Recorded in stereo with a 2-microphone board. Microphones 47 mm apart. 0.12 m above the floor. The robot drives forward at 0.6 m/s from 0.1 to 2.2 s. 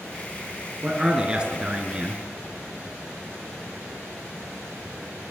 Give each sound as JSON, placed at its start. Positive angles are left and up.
{"t": 0.8, "sound": "a man speaking", "side_deg": -20, "distance_m": 1.4}